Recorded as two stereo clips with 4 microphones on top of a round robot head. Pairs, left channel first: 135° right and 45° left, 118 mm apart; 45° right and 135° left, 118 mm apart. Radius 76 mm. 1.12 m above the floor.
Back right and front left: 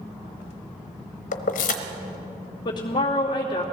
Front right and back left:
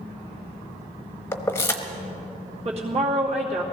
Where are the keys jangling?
115° right, 0.9 m.